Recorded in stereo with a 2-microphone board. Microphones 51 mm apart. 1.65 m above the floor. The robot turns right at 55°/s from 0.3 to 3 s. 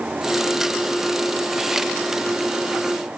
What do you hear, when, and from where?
Only background noise.